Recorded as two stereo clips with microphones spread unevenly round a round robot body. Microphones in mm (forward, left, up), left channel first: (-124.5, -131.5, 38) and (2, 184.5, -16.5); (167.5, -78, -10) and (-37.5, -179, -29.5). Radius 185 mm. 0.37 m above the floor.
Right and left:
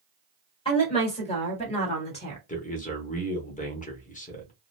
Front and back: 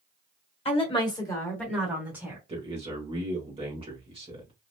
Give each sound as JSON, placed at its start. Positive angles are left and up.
{"t": 0.7, "sound": "a woman speaking", "azimuth_deg": -35, "distance_m": 1.6}
{"t": 2.5, "sound": "a man speaking", "azimuth_deg": -175, "distance_m": 0.8}